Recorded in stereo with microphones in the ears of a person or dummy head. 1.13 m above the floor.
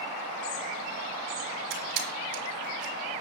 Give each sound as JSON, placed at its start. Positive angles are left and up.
{"t": 1.7, "sound": "a camera shutter", "side_deg": -75, "distance_m": 3.5}